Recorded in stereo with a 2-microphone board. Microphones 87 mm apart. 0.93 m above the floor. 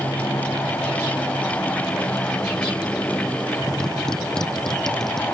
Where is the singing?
I don't hear singing.